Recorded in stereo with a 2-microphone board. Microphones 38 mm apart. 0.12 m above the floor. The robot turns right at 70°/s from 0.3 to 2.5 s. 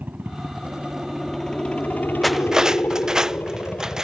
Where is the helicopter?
60° right (ahead or behind); by 4.0 s 50° left (ahead or behind).